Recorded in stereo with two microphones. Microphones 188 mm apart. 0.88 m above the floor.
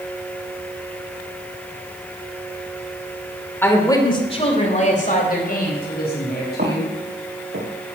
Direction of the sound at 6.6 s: 55° right (ahead or behind).